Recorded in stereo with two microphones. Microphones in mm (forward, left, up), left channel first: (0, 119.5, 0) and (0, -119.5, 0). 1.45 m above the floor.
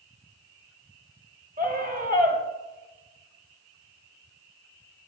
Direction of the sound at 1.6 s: 40° right (ahead or behind).